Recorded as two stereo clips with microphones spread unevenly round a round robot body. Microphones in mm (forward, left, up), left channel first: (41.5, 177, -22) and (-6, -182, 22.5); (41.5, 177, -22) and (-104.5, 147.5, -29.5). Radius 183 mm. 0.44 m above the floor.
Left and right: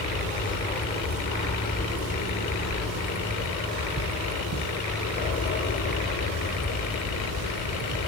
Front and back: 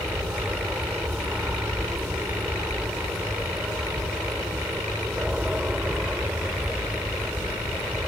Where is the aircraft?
125° left; by 8.1 s 115° left.